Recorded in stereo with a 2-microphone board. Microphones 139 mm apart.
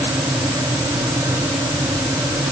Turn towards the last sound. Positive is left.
No sound to turn to.